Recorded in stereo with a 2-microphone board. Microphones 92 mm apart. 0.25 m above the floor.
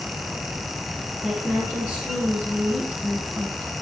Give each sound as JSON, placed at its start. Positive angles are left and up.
{"t": 1.2, "sound": "a woman speaking", "side_deg": 10, "distance_m": 3.0}